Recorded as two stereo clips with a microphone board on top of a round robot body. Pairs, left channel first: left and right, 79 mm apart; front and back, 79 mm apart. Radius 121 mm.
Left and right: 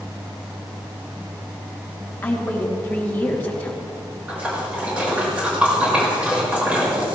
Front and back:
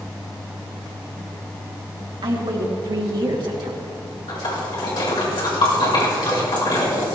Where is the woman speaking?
160° left, 2.5 m.